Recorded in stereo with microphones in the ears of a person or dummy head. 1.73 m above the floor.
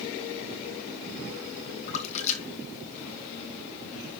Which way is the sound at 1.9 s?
40° left (ahead or behind).